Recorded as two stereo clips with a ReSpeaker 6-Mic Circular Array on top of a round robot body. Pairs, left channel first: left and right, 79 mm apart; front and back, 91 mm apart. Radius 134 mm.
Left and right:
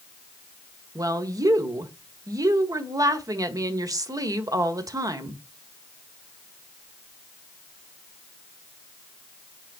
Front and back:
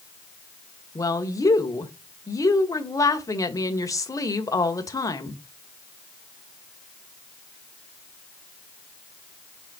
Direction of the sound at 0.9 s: 50° right.